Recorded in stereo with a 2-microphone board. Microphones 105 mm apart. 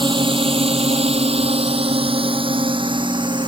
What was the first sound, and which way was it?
A drone, 50° right (ahead or behind).